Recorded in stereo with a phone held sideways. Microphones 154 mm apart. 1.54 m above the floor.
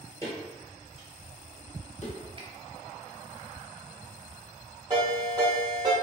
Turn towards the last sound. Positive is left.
turn(degrees=-30)  # may be behind; listen again after turning